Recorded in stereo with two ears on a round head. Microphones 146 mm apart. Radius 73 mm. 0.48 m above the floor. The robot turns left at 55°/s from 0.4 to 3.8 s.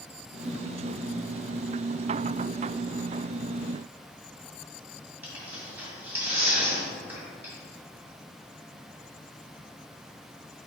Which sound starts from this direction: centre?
Tearing paper, at 5.2 s.